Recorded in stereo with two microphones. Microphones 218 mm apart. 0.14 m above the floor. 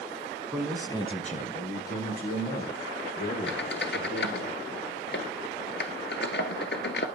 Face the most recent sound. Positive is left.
turn(degrees=55)  # may be behind; listen again after turning